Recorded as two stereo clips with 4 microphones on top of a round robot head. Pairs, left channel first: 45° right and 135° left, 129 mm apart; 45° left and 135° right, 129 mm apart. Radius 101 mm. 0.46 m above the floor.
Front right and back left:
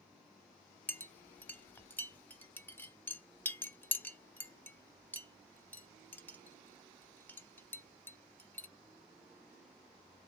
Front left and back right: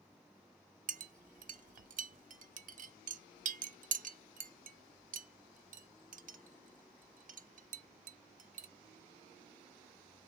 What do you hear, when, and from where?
0.9 s a clink: 125° right, 0.7 m